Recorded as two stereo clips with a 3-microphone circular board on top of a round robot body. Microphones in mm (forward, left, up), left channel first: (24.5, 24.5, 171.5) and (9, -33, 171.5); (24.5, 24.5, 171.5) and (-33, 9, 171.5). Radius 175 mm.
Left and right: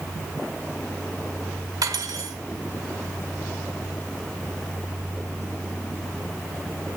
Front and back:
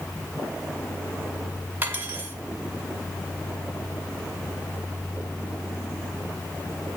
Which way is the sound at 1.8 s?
105° right.